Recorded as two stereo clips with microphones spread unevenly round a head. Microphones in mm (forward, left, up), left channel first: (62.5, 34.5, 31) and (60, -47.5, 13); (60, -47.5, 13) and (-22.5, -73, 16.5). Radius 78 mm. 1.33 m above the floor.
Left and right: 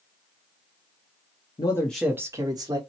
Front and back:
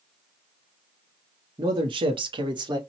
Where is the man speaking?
135° left, 0.7 m; by 2.8 s 125° right, 1.3 m.